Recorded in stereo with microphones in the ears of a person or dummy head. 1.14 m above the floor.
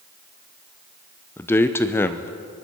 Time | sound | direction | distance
1.4 | a man speaking | 10° left (ahead or behind) | 0.7 m